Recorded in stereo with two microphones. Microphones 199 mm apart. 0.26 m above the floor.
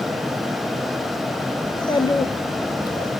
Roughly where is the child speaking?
Left.